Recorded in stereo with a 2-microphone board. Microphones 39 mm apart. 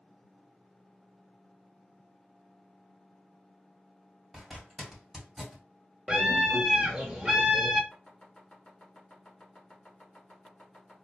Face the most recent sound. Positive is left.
turn(degrees=15)  # may be behind; listen again after turning